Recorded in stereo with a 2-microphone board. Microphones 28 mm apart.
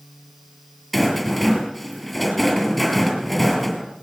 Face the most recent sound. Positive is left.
turn(degrees=0)  # may be behind; listen again after turning